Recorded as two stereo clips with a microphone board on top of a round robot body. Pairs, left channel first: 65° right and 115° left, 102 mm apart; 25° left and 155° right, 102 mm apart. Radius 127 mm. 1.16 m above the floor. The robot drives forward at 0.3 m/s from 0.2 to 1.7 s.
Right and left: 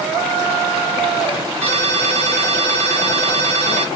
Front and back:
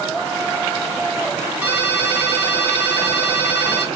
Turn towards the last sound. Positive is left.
turn(degrees=130)